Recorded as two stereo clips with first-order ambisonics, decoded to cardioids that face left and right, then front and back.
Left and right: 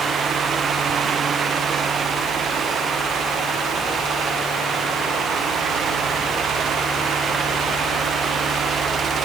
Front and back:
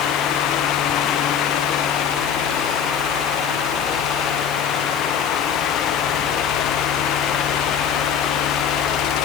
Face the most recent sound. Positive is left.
No sound to turn to.